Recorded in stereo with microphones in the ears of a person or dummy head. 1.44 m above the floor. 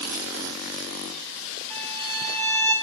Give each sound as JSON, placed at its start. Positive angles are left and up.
{"t": 1.7, "sound": "a violin", "side_deg": 0, "distance_m": 6.0}